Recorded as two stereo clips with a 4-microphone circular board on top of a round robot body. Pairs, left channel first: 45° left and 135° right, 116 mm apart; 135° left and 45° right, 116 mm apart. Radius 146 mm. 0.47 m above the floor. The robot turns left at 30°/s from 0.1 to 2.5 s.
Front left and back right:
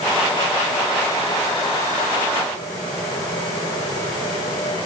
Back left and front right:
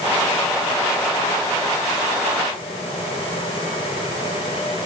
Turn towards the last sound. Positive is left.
No sound to turn to.